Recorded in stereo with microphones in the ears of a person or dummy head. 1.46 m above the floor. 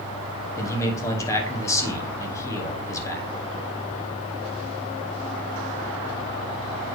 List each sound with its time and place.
0.6 s a man speaking: 20° left (ahead or behind), 0.9 m